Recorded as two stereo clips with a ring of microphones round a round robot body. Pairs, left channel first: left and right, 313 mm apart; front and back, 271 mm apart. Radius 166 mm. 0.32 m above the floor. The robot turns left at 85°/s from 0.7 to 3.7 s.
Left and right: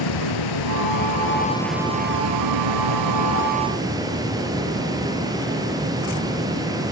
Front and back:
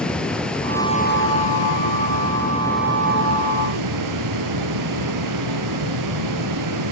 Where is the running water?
85° left, 3.5 m; by 6.9 s 170° right, 3.5 m.